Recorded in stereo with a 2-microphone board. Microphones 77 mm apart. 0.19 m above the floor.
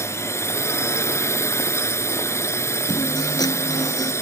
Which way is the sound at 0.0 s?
35° left (ahead or behind).